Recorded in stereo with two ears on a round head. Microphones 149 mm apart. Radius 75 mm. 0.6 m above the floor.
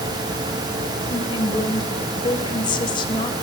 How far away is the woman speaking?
About 3 m.